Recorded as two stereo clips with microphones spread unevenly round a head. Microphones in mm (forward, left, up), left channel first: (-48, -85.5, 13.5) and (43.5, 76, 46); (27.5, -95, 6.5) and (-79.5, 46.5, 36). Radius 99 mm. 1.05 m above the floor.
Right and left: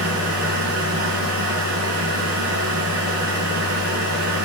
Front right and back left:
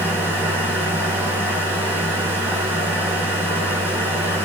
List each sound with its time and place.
0.0 s a machine running: 45° left, 8.5 m